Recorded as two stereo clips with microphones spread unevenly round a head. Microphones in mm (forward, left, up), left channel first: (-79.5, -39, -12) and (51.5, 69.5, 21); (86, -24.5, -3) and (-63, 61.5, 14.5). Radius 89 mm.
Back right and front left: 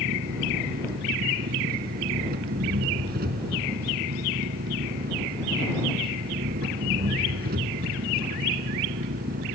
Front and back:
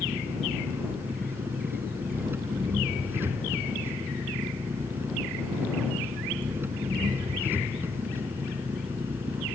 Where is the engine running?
75° left.